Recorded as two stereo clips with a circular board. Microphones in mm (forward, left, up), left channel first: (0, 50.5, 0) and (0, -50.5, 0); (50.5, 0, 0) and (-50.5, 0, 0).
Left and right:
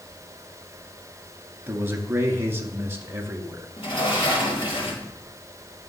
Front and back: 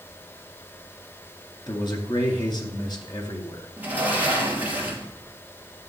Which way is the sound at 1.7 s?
30° right.